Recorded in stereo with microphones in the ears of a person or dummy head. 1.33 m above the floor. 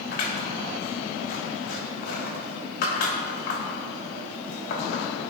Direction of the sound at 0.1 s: 60° left (ahead or behind).